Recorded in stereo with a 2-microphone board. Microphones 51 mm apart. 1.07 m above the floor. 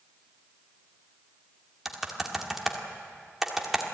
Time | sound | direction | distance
1.9 | typing on a keyboard | 5° right (ahead or behind) | 2.0 m